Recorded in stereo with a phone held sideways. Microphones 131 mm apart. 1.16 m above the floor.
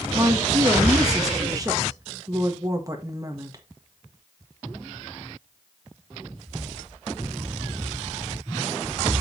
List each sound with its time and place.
0.1 s a woman speaking: 25° right (ahead or behind), 1.6 m